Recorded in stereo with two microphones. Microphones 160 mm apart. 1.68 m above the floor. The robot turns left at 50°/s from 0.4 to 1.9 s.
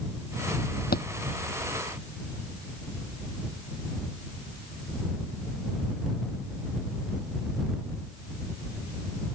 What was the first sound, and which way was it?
A thud, 75° left (ahead or behind).